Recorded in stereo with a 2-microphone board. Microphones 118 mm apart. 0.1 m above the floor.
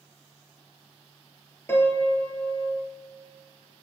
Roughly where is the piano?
Centre.